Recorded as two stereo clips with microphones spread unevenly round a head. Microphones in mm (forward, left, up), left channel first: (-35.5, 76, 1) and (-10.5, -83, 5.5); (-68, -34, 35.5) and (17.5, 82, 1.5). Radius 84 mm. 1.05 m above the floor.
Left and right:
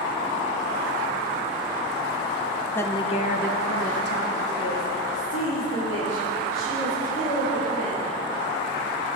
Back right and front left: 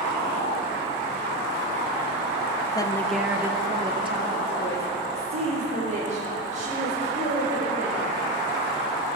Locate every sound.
2.8 s a woman speaking: 170° left, 0.7 m; by 8.0 s 85° left, 4.5 m